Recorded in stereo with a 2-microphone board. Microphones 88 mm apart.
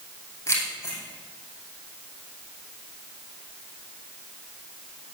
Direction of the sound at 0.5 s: 35° left (ahead or behind).